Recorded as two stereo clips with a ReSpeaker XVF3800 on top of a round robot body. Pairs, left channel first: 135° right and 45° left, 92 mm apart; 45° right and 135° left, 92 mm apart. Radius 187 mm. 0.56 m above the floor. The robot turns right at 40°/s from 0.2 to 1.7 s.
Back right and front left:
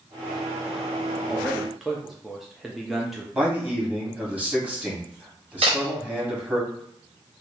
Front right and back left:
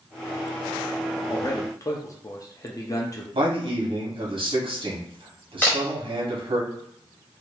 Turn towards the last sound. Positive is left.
turn(degrees=30)